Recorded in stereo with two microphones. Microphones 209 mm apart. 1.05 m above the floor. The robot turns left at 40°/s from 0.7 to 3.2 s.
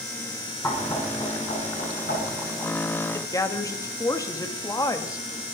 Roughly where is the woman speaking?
Centre.